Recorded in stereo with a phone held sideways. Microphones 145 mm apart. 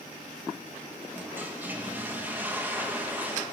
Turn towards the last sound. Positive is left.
turn(degrees=-15)  # may be behind; listen again after turning